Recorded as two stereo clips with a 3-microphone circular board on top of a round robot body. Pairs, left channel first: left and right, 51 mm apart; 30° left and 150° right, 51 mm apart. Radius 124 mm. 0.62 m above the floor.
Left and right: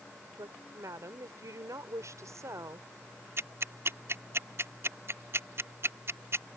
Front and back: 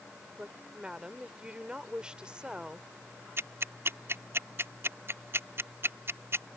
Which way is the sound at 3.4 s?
120° right.